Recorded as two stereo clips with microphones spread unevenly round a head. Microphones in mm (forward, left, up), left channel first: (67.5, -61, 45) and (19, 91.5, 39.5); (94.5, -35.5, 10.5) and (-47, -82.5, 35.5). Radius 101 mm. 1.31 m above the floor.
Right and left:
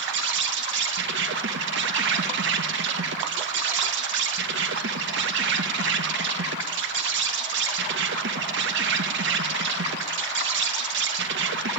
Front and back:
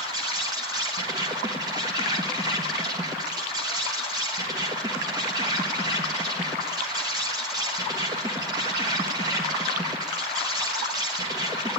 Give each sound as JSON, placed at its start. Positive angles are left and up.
{"t": 0.0, "sound": "an insect", "azimuth_deg": 125, "distance_m": 1.3}